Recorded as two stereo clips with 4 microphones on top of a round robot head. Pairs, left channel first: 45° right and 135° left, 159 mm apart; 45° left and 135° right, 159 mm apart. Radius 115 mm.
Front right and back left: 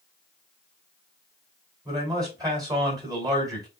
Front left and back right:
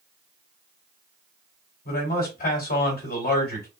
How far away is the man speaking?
About 3 m.